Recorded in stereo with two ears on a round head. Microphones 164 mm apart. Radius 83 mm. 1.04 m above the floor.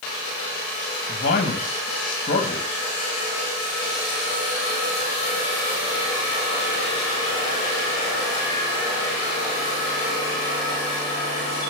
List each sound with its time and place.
1.1 s a man speaking: 50° left (ahead or behind), 1.5 m